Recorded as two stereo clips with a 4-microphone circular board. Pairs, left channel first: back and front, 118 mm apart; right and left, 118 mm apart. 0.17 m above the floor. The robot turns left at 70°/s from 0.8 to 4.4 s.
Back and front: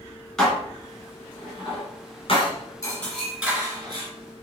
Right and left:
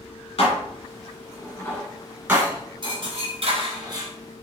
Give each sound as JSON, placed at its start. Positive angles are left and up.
{"t": 0.4, "sound": "dishes clattering", "azimuth_deg": -90, "distance_m": 1.7}